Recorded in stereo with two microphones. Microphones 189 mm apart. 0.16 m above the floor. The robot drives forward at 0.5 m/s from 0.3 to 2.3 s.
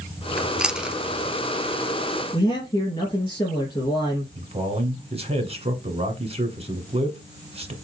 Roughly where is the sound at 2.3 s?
Left.